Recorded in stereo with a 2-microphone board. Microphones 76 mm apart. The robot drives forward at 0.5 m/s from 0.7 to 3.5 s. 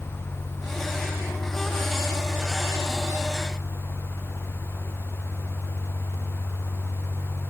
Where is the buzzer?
I don't hear a buzzer.